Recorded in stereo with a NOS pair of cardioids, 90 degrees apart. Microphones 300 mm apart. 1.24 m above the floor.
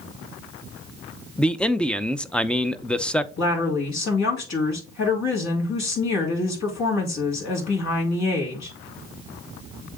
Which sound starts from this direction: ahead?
A man speaking, at 1.4 s.